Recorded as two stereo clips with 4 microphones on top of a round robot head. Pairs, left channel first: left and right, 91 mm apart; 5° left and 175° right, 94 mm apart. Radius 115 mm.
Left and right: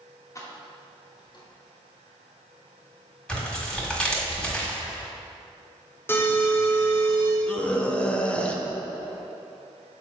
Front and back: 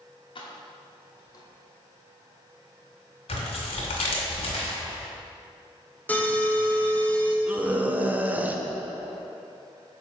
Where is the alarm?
60° left, 1.2 m.